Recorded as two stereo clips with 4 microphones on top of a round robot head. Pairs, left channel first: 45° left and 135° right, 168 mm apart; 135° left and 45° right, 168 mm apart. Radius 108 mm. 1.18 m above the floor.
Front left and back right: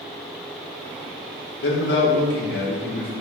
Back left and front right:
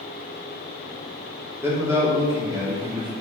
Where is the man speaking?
35° left, 3.5 m; by 3.1 s 20° left, 2.5 m.